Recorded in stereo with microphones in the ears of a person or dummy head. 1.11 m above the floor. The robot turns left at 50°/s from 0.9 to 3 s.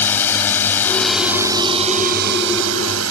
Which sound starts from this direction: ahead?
A drone, at 0.0 s.